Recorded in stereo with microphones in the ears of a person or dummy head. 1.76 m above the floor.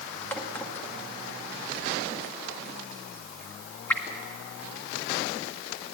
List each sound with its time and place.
0.3 s a crack: 15° left (ahead or behind), 1.9 m